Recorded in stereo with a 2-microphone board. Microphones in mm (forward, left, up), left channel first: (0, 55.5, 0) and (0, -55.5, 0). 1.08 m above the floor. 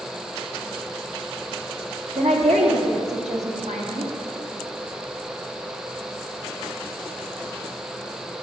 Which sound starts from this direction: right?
A woman speaking, at 2.1 s.